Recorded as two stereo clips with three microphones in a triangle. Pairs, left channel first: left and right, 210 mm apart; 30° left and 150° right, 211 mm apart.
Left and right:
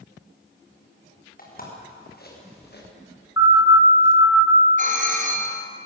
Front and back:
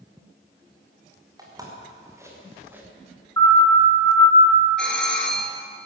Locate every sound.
1.4 s footsteps: 135° left, 7.5 m; by 2.8 s 130° left, 6 m
3.4 s a siren: 105° left, 7.5 m; by 4.6 s 95° left, 6 m
4.8 s a doorbell: 55° right, 3 m